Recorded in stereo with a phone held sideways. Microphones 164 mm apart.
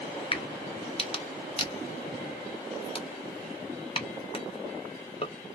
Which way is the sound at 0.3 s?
35° left (ahead or behind).